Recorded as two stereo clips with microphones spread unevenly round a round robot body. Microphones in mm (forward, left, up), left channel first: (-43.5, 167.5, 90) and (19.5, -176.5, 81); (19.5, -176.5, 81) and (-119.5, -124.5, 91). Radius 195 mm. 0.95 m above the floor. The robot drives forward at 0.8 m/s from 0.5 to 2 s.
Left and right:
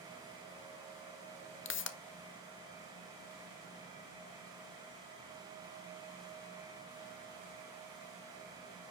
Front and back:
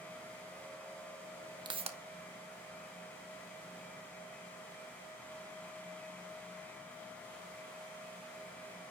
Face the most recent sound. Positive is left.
turn(degrees=150)